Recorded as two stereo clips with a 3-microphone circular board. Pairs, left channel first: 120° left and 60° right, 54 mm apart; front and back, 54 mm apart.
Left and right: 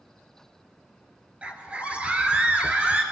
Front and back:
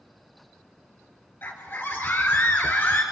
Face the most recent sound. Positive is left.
turn(degrees=-5)